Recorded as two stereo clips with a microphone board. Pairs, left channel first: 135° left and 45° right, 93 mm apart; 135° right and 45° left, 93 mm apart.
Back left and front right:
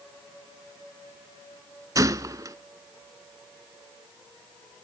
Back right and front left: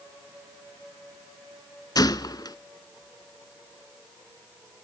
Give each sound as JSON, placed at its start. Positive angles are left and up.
{"t": 1.9, "sound": "a gunshot", "azimuth_deg": -95, "distance_m": 0.5}